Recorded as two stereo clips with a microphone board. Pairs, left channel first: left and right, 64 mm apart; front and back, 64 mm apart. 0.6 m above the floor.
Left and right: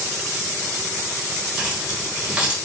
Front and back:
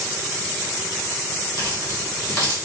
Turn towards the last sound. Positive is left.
turn(degrees=-20)